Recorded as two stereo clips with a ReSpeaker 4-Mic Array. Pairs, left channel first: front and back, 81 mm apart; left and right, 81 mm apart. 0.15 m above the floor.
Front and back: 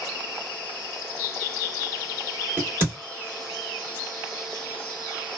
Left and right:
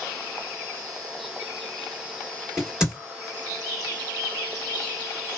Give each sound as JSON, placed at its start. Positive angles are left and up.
{"t": 2.6, "sound": "a crack", "azimuth_deg": -160, "distance_m": 1.9}